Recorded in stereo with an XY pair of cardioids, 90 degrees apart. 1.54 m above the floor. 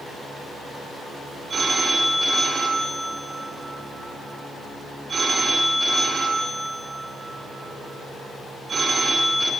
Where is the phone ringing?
45° right, 3.5 m.